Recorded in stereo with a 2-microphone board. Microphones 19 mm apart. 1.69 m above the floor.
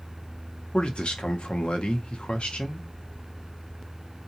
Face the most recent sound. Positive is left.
turn(degrees=80)